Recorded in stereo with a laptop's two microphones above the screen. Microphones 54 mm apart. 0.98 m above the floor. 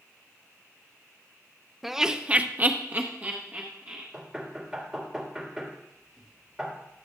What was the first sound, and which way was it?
Laughter, 5° right (ahead or behind).